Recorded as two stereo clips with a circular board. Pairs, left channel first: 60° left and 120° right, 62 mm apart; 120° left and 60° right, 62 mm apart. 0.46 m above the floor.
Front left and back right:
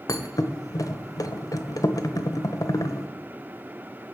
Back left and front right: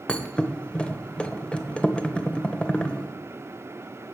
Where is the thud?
50° left, 0.8 m.